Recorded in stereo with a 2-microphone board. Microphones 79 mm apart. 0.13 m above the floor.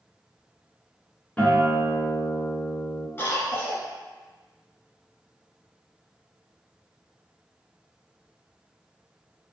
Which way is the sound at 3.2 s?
30° left (ahead or behind).